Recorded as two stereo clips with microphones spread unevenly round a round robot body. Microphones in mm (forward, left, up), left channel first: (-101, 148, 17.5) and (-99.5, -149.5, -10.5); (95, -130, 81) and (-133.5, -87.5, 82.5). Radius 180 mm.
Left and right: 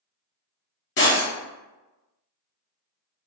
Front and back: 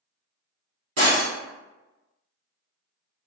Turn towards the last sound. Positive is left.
turn(degrees=125)